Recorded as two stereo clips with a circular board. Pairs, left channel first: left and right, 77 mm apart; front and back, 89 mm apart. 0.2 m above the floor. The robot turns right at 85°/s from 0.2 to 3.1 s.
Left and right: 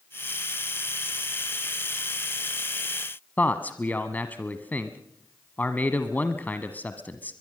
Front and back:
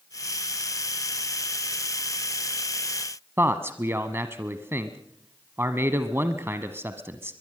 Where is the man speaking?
140° left, 1.2 m.